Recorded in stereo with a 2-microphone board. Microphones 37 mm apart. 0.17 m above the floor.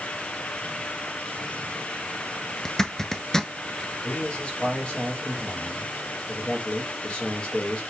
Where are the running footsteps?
I don't hear running footsteps.